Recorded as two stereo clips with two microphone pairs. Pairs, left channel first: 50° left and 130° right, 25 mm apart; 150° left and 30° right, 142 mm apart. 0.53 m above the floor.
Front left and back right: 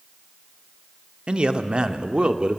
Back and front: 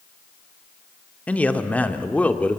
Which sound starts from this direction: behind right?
A man speaking, at 1.3 s.